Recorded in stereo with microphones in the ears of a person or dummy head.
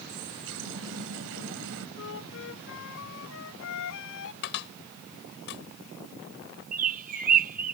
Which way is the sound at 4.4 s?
60° left (ahead or behind).